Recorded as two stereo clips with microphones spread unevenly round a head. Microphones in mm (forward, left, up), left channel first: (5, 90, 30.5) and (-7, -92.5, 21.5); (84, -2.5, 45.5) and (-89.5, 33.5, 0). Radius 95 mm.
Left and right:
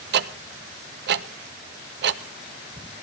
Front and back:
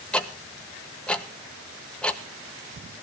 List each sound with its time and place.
0.1 s ticking: 105° right, 0.7 m